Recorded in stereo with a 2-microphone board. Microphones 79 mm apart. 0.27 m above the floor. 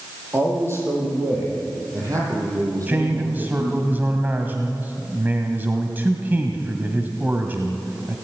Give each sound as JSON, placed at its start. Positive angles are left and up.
{"t": 0.3, "sound": "a man speaking", "side_deg": -30, "distance_m": 9.0}
{"t": 2.9, "sound": "a man speaking", "side_deg": -25, "distance_m": 2.0}